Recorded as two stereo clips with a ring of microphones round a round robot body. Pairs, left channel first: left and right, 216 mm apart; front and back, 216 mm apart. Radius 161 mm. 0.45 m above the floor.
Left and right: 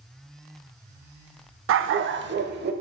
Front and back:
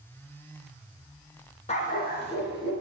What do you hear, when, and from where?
1.7 s a dog barking: 65° right, 0.6 m; by 2.7 s 45° right, 1.0 m